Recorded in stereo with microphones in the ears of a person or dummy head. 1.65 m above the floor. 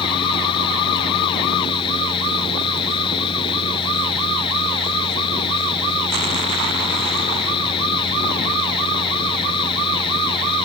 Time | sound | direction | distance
0.0 | a fan | 25° left (ahead or behind) | ?